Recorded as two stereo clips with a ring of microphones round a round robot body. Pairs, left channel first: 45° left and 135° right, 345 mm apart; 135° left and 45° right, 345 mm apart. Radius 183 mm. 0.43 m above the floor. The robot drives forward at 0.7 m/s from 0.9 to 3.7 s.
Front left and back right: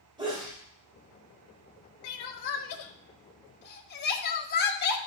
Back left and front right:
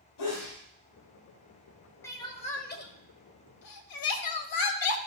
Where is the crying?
50° left, 1.4 m; by 5.0 s 105° left, 1.2 m.